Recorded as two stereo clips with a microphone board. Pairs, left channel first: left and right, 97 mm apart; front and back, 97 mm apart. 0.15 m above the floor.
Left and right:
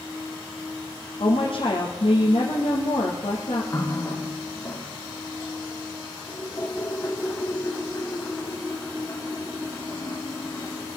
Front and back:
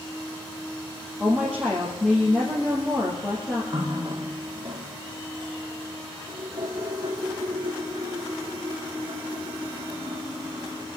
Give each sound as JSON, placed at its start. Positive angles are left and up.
{"t": 1.2, "sound": "a woman speaking", "azimuth_deg": 90, "distance_m": 3.0}
{"t": 3.7, "sound": "a running tap", "azimuth_deg": 145, "distance_m": 3.0}